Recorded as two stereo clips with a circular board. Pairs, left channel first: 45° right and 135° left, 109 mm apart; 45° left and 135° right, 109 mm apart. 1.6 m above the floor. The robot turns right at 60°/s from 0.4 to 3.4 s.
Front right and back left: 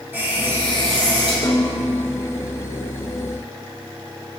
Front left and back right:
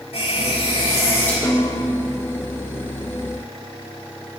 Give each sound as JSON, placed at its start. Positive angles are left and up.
{"t": 0.1, "sound": "a running tap", "azimuth_deg": 65, "distance_m": 6.5}
{"t": 1.4, "sound": "a snare drum", "azimuth_deg": -10, "distance_m": 1.9}